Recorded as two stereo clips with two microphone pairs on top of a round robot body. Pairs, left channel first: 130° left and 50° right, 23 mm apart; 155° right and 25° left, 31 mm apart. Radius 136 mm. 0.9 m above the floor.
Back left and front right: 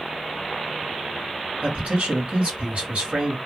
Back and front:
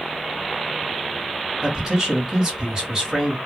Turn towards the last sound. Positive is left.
turn(degrees=-45)